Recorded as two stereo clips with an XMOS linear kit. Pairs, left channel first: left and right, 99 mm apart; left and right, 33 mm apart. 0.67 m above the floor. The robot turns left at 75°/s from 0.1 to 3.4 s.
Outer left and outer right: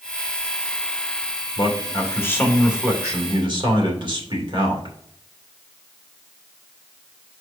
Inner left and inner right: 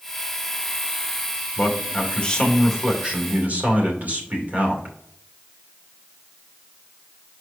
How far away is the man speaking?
About 2 m.